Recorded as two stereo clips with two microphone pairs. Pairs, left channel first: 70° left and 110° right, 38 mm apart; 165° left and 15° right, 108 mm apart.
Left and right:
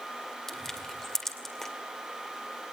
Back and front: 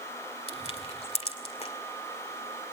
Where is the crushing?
150° left, 2 m.